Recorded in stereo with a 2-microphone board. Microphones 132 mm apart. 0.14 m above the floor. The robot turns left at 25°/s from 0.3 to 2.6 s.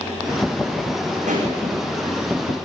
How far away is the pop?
About 9.5 m.